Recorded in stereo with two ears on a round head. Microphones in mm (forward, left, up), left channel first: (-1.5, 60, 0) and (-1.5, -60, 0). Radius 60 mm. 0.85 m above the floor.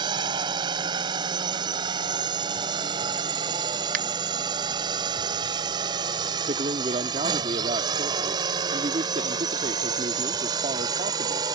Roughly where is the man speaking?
Right.